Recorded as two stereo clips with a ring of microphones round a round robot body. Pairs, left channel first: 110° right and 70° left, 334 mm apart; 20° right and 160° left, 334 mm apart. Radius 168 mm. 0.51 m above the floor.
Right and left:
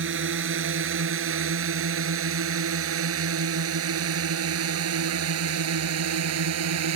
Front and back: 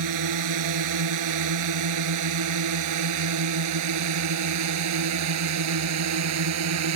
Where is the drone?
125° left; by 7.0 s 115° left.